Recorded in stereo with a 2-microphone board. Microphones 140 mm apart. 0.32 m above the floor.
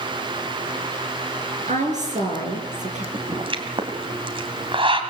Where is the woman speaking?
60° right (ahead or behind), 5 m.